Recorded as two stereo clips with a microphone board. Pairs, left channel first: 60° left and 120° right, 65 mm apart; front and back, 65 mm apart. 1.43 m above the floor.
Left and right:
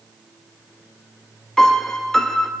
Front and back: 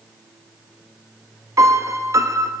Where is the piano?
145° left, 0.6 m.